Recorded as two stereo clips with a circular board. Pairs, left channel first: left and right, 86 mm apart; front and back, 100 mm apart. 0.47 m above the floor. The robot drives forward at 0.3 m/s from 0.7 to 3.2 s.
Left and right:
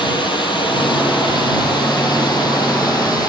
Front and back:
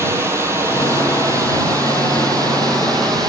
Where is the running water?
115° left, 2.5 m; by 3.3 s 130° left, 3 m.